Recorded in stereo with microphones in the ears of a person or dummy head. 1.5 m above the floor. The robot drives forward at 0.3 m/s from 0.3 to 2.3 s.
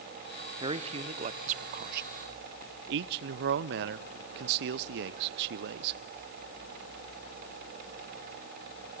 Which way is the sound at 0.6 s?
35° right (ahead or behind).